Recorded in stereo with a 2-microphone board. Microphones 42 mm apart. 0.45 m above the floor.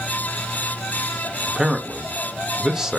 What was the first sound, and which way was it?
A man speaking, 10° right (ahead or behind).